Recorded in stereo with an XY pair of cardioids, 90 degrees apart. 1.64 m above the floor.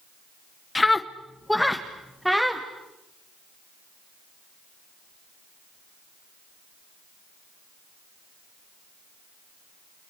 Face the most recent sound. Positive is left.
turn(degrees=-5)